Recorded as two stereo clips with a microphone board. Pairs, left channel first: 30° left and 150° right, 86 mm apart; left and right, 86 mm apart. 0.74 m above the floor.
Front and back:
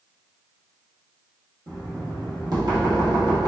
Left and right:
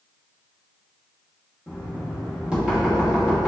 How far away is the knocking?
About 1.1 m.